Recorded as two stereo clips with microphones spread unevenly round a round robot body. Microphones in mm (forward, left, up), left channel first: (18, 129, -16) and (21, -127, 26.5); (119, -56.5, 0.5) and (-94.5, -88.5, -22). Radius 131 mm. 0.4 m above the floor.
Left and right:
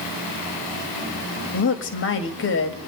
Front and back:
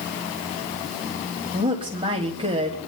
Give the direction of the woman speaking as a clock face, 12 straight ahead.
8 o'clock.